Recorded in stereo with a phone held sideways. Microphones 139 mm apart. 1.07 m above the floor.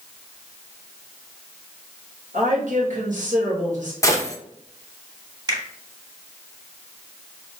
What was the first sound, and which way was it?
A woman speaking, 65° right (ahead or behind).